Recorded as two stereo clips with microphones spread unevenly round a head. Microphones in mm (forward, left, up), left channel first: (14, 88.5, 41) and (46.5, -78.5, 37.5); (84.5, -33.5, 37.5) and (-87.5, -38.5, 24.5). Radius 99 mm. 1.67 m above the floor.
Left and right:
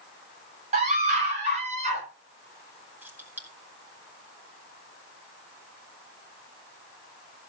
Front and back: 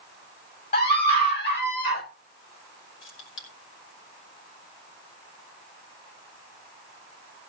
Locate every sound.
0.7 s a scream: 30° right, 7.5 m; by 2.0 s 25° right, 8 m
3.0 s keys jangling: straight ahead, 3.5 m